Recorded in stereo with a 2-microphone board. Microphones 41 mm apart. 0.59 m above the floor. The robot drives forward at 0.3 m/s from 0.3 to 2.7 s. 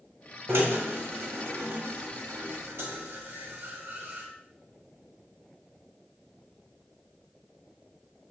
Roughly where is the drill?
Right.